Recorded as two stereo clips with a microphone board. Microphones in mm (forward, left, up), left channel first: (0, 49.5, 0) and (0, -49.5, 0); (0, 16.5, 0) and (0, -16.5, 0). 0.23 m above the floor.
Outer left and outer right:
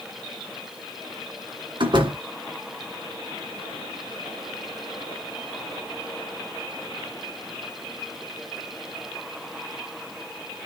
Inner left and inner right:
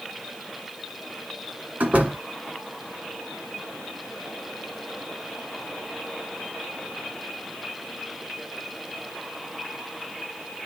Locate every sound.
1.8 s a door slam: 55° right (ahead or behind), 1.8 m